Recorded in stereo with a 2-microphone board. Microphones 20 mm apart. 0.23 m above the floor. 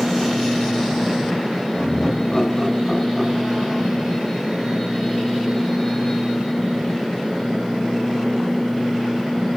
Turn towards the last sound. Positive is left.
turn(degrees=-15)  # may be behind; listen again after turning